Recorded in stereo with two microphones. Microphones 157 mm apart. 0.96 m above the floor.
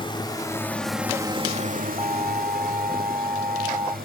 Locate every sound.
0.0 s a drone: 35° left (ahead or behind); by 4.1 s 75° right (ahead or behind)
2.0 s an alarm: 25° right (ahead or behind)